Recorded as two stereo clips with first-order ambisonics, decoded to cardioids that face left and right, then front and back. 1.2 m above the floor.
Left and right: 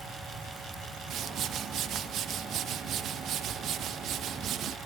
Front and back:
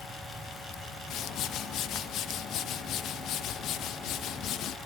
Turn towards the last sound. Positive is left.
turn(degrees=-40)